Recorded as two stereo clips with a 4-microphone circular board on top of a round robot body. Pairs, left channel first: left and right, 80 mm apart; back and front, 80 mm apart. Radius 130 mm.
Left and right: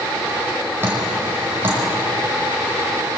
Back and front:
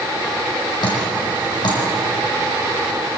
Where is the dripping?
150° right, 6 m.